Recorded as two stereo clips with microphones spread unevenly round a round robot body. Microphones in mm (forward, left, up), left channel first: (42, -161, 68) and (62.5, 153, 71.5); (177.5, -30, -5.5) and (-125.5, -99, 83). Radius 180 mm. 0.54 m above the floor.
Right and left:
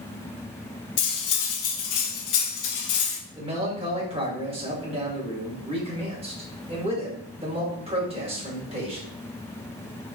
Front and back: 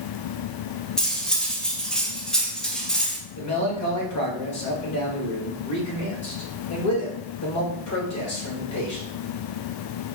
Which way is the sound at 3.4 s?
15° left.